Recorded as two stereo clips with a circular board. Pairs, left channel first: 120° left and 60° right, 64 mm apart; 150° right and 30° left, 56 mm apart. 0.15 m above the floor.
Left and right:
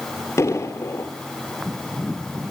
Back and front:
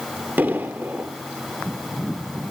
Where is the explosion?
80° left, 2 m.